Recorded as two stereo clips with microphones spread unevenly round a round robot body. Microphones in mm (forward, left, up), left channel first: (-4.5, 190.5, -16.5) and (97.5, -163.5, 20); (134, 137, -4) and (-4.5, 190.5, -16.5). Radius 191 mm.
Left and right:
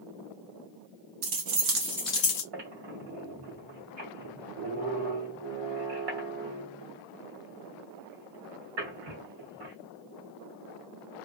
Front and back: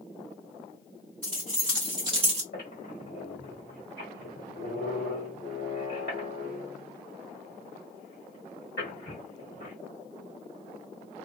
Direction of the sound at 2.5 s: 50° right.